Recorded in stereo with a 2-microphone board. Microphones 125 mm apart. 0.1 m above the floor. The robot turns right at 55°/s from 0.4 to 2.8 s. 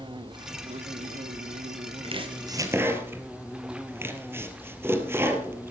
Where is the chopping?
50° right (ahead or behind), 2 m; by 5.7 s 20° right (ahead or behind), 2 m.